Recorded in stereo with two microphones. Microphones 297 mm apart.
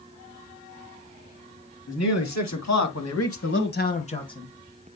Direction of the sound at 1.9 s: 60° left (ahead or behind).